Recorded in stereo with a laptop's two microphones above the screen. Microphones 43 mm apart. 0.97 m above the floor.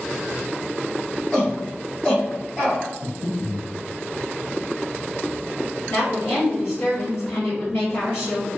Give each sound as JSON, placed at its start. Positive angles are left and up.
{"t": 1.3, "sound": "a shout", "side_deg": 20, "distance_m": 1.1}
{"t": 3.0, "sound": "breathing", "side_deg": 40, "distance_m": 0.6}
{"t": 5.9, "sound": "a woman speaking", "side_deg": 75, "distance_m": 1.5}